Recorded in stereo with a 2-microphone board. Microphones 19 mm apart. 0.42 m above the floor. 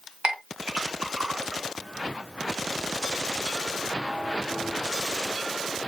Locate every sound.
0.2 s a clink: 70° right (ahead or behind), 1.6 m